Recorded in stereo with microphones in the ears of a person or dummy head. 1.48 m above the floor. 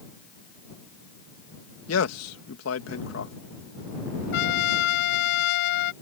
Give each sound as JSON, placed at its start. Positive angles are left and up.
{"t": 1.9, "sound": "a man speaking", "side_deg": 85}
{"t": 4.3, "sound": "a trumpet", "side_deg": 60}